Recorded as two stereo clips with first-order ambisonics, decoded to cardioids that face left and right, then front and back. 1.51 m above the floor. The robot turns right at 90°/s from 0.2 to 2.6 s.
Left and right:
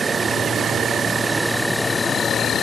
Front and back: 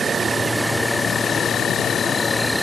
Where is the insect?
135° right; by 2.6 s 80° left.